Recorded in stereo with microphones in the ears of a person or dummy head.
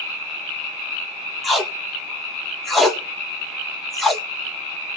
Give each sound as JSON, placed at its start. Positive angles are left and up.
{"t": 1.4, "sound": "tape being pulled", "side_deg": 0, "distance_m": 1.2}